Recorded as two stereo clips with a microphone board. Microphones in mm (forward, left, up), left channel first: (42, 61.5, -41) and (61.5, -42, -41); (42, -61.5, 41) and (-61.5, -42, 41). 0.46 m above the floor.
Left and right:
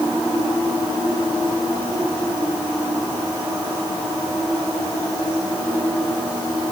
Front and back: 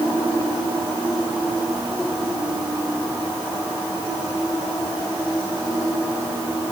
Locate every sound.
Only background noise.